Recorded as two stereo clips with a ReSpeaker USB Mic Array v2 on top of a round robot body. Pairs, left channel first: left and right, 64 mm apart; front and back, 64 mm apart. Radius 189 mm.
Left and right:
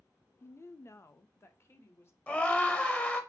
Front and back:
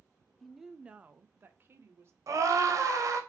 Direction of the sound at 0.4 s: 85° left.